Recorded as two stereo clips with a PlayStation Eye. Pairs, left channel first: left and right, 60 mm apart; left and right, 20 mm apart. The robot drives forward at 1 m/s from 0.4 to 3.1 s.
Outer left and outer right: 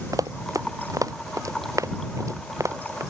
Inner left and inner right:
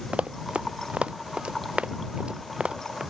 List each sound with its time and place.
0.1 s running footsteps: 75° right (ahead or behind); by 3.0 s 60° right (ahead or behind)